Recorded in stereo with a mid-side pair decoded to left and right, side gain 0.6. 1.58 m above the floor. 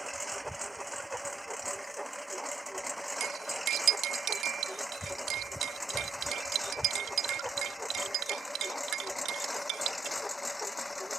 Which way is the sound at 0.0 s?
5° right.